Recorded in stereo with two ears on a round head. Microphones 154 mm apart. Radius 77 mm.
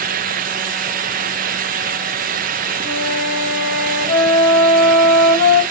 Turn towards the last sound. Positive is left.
turn(degrees=50)  # may be behind; listen again after turning